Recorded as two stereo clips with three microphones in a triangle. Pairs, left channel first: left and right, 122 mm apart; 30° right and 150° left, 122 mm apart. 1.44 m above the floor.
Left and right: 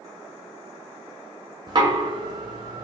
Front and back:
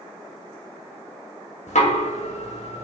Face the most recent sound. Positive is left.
turn(degrees=-40)